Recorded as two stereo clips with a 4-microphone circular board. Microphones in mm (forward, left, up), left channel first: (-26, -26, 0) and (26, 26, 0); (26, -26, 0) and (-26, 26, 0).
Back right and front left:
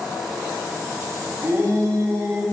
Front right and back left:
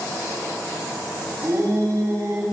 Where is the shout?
90° left, 4 m.